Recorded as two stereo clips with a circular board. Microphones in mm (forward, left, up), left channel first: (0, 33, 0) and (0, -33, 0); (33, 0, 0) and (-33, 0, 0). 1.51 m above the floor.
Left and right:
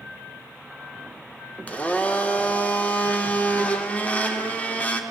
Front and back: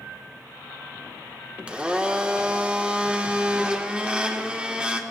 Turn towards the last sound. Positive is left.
turn(degrees=130)